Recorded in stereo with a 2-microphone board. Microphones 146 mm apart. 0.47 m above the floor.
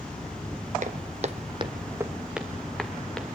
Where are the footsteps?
55° right (ahead or behind), 0.9 m; by 3.2 s 5° left (ahead or behind), 2 m.